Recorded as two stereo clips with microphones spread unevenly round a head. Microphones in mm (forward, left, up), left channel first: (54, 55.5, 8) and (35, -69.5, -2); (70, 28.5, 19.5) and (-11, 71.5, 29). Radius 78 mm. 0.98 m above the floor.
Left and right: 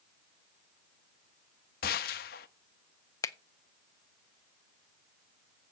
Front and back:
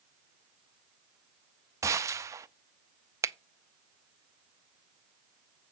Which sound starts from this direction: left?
A gunshot, at 1.8 s.